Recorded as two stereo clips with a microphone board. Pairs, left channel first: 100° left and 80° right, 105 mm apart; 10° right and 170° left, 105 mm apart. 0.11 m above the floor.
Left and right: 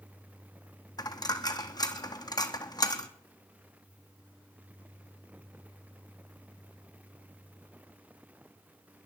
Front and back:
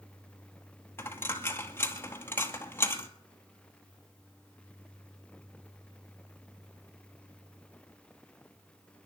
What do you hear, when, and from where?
1.0 s a dropped coin: 55° left, 1.1 m